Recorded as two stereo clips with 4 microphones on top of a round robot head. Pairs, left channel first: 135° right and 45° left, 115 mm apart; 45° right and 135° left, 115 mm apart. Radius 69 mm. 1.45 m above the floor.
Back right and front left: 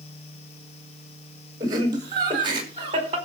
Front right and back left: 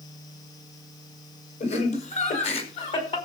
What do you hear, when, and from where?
1.6 s laughter: 15° right, 5 m; by 3.2 s straight ahead, 4.5 m